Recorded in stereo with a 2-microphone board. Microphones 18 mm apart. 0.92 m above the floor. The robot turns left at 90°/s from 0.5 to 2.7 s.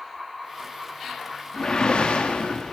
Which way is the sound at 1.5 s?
155° left.